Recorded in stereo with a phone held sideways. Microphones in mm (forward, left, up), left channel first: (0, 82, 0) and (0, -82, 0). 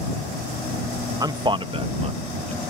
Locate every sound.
1.2 s a man speaking: 20° right (ahead or behind); by 2.6 s 40° right (ahead or behind)